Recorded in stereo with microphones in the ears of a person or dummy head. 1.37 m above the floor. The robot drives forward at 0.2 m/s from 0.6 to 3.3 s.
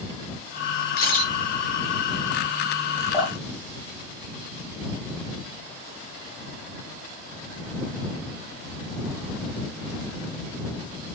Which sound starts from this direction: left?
A camera shutter, at 1.0 s.